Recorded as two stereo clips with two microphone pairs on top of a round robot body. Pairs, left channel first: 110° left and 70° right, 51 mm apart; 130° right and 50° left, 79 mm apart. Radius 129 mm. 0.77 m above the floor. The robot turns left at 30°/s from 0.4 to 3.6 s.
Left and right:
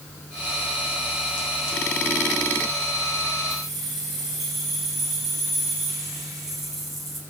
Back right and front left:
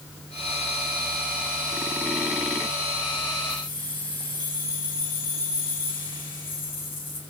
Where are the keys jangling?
150° right, 7.5 m; by 7.2 s 155° right, 7.5 m.